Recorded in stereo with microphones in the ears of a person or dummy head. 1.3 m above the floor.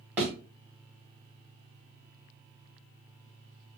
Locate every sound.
0.2 s a thud: 10° right (ahead or behind), 1.1 m